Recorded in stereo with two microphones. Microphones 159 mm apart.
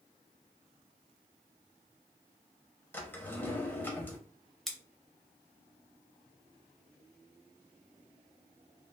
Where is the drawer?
15° left (ahead or behind), 0.9 m.